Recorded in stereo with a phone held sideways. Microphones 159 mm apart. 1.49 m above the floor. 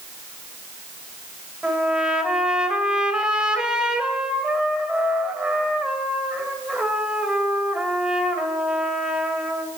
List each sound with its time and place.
1.6 s a trumpet: 5° right (ahead or behind), 2.0 m